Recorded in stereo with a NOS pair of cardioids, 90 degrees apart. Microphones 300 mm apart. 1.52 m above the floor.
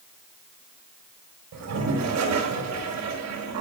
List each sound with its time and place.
1.5 s a toilet flushing: 65° right, 4.5 m